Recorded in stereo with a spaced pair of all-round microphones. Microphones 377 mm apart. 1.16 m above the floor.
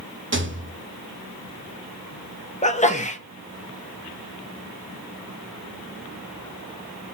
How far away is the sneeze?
About 0.9 m.